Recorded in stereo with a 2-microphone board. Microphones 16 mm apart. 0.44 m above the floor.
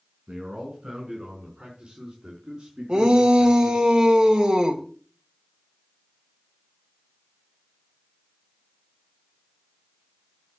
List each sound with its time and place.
0.3 s a man speaking: 65° right (ahead or behind), 5 m; by 3.9 s 80° right, 6 m
2.9 s a shout: 60° right (ahead or behind), 2 m